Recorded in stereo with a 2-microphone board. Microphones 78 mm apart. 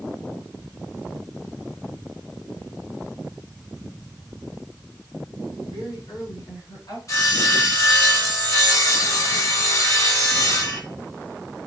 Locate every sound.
5.6 s a woman speaking: 60° left (ahead or behind), 5.5 m; by 7.0 s 70° left (ahead or behind), 5.5 m
7.1 s sawing: 45° left (ahead or behind), 2.5 m